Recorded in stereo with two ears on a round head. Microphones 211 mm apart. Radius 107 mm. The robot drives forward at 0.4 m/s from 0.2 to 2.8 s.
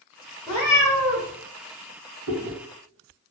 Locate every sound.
0.5 s a cat meowing: 15° left (ahead or behind), 1.0 m; by 1.3 s 10° left (ahead or behind), 1.3 m
2.3 s chewing: 50° right (ahead or behind), 1.0 m